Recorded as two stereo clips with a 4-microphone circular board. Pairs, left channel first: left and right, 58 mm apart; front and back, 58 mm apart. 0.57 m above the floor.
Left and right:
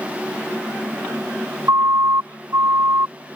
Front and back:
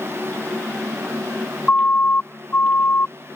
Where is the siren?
65° right; by 3.1 s 50° right.